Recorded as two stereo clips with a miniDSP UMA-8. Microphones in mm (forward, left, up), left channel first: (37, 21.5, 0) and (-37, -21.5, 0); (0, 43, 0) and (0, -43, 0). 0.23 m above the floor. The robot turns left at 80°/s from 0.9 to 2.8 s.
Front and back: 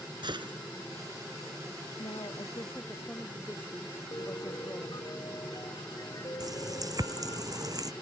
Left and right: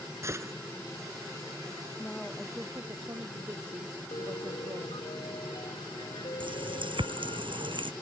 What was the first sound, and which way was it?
A gunshot, 145° right.